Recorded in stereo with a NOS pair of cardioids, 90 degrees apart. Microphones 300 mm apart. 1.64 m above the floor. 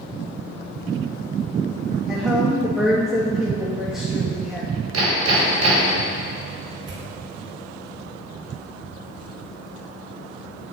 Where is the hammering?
60° right, 5 m.